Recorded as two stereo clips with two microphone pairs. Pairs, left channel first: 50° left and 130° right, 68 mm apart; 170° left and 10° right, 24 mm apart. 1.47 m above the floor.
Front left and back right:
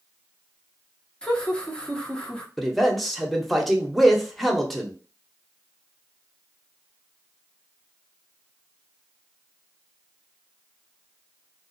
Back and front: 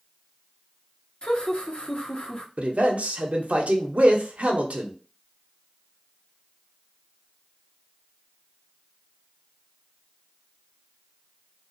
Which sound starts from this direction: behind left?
Laughter, at 1.2 s.